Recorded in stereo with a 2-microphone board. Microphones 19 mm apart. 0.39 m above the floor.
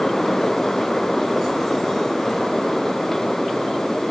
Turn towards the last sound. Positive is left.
No sound to turn to.